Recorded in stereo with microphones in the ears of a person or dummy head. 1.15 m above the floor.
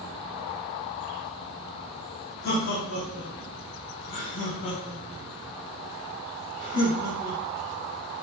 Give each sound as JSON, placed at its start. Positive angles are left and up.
{"t": 2.4, "sound": "laughter", "side_deg": 55, "distance_m": 1.2}